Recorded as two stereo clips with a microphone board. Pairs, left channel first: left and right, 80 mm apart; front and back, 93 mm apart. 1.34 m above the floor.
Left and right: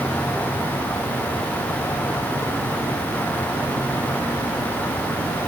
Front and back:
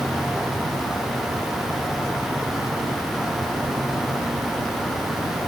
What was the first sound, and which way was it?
Only background noise.